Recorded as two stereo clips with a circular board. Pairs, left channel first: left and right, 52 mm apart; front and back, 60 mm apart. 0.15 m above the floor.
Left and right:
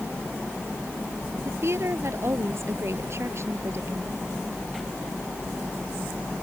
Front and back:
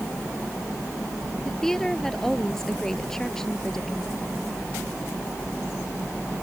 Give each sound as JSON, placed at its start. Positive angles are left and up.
{"t": 1.4, "sound": "a woman speaking", "azimuth_deg": -80}